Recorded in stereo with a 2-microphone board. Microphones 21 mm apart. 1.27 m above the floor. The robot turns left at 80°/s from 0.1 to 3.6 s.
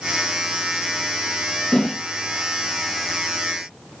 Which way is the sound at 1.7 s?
50° left (ahead or behind).